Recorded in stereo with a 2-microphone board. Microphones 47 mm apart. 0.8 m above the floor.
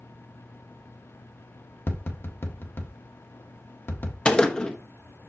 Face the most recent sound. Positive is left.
turn(degrees=20)  # may be behind; listen again after turning